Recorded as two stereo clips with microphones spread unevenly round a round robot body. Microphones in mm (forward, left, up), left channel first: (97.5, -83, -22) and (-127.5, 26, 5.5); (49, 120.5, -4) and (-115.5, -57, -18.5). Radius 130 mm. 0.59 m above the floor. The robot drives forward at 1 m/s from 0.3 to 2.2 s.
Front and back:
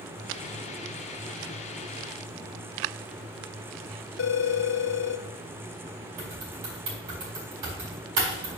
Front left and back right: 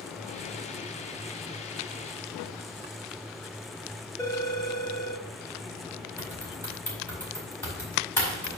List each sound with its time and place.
4.2 s a phone ringing: 30° right, 0.9 m
6.2 s typing on a keyboard: 130° left, 4.5 m